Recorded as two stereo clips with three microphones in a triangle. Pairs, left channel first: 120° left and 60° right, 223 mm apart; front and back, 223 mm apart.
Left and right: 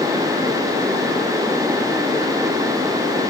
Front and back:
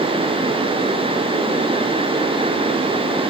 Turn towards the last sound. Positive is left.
No sound to turn to.